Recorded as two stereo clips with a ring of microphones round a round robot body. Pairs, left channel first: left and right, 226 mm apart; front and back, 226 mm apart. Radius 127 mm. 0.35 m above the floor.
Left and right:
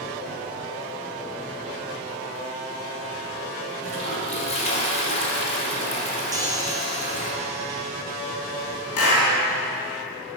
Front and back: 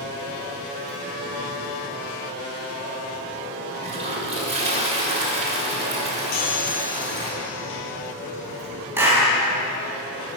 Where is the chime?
15° right, 1.9 m.